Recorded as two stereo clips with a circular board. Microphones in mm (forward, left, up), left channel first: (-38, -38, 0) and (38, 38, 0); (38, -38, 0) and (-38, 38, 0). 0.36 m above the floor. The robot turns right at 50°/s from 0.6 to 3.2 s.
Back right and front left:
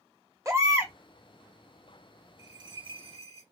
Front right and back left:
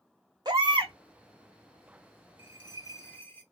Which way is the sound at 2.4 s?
15° right.